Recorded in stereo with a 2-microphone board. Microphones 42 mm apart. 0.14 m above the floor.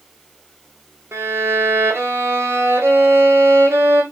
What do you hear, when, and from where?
1.1 s a violin: 85° right, 1.5 m